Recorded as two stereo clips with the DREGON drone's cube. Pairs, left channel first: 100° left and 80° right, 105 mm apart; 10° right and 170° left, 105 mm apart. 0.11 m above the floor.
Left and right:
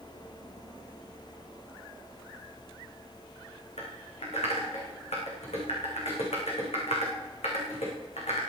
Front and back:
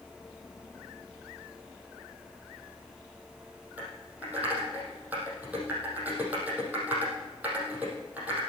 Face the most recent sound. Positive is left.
turn(degrees=95)